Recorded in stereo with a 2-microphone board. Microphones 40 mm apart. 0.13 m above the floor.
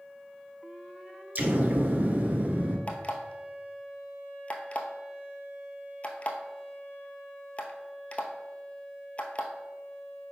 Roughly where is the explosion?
Right.